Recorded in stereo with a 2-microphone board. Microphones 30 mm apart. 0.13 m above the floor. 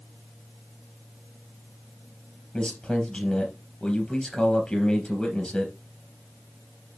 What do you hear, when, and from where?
2.5 s a man speaking: 30° left (ahead or behind), 3 m